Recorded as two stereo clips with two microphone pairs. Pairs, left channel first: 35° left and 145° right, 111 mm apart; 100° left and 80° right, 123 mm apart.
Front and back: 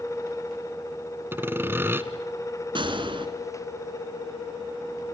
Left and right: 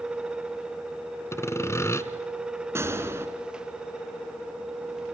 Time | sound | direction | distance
1.3 | sawing | 155° left | 1.1 m
2.8 | a gunshot | 140° right | 2.0 m